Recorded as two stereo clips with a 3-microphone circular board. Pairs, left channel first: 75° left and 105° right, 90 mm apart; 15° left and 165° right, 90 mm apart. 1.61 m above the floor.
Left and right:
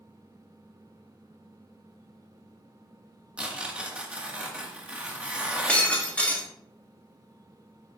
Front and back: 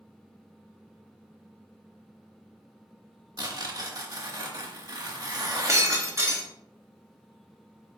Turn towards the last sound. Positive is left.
turn(degrees=150)